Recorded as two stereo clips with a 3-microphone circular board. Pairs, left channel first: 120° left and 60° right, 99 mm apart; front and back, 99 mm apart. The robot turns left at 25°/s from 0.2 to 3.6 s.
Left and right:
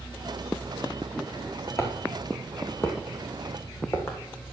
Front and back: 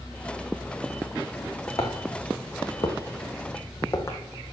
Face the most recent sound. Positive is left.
turn(degrees=60)